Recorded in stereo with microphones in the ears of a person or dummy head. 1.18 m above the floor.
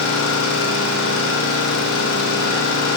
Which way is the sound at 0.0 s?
80° left.